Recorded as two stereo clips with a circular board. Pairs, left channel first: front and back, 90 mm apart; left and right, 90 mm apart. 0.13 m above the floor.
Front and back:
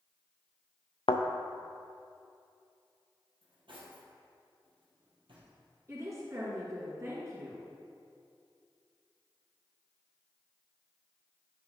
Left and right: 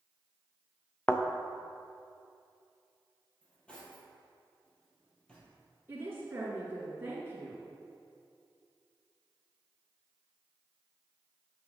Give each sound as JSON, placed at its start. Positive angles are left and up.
{"t": 1.1, "sound": "a thud", "azimuth_deg": 15, "distance_m": 0.8}
{"t": 3.4, "sound": "cutlery clinking", "azimuth_deg": 165, "distance_m": 1.9}
{"t": 5.9, "sound": "a woman speaking", "azimuth_deg": -145, "distance_m": 2.0}